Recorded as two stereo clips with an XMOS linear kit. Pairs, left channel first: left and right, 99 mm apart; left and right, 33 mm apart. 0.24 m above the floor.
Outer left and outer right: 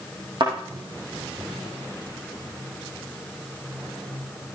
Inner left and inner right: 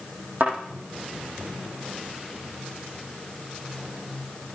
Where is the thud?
50° right (ahead or behind), 5.5 m.